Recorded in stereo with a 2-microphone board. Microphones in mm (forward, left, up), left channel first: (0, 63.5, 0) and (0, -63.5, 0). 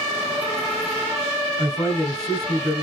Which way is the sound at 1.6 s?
5° left (ahead or behind).